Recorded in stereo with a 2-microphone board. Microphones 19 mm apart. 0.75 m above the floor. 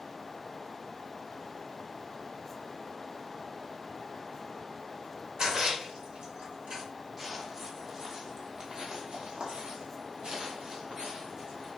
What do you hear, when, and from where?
5.4 s a splash: 50° right (ahead or behind), 1.8 m
7.2 s footsteps: 15° right (ahead or behind), 1.7 m; by 11.7 s 45° right (ahead or behind), 2 m